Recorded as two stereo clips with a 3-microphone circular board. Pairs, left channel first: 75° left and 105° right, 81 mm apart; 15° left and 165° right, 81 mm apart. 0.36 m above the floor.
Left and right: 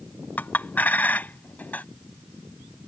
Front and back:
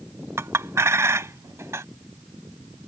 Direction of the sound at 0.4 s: 145° left.